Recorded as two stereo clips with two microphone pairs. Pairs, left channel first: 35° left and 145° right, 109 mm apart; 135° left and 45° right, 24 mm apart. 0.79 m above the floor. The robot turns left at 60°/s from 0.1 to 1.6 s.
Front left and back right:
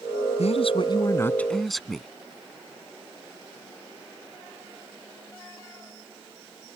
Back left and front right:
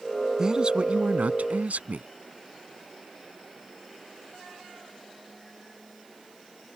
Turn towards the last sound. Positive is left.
turn(degrees=-55)